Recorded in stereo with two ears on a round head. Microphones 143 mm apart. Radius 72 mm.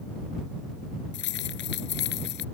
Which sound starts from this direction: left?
Keys jangling, at 1.1 s.